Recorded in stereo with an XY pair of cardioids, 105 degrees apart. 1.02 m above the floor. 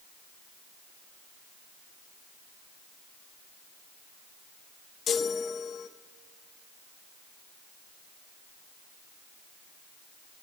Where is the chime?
60° left, 0.5 m.